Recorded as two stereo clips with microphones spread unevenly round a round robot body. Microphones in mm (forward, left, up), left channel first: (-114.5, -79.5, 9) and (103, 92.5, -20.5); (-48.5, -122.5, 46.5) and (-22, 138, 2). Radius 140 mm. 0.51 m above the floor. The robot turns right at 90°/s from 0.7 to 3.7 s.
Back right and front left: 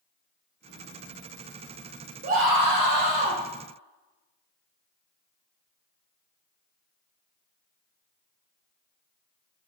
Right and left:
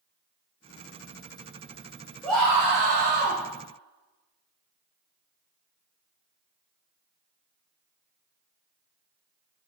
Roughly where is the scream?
Ahead.